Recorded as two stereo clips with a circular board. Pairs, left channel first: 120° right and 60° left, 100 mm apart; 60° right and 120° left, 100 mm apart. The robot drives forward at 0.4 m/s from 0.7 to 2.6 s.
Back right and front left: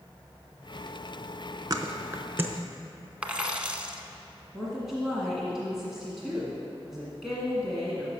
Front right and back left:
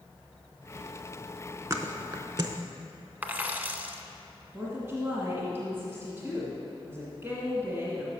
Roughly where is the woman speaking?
Behind left.